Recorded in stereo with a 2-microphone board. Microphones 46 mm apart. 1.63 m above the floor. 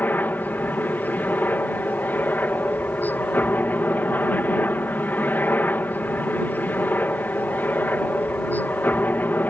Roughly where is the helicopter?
Left.